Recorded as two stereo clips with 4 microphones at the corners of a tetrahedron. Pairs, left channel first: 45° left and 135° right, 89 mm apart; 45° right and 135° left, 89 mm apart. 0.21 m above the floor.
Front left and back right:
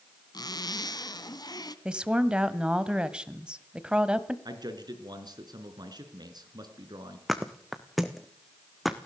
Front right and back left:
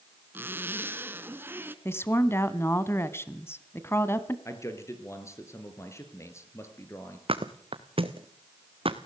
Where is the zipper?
75° left, 1.2 m.